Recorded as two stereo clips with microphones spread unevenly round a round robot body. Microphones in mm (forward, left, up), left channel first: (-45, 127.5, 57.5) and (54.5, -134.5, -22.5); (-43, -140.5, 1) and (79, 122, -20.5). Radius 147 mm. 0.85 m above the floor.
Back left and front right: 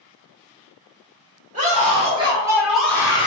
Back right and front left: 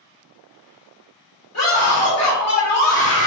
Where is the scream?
115° right, 1.5 m; by 3.3 s 175° right, 0.8 m.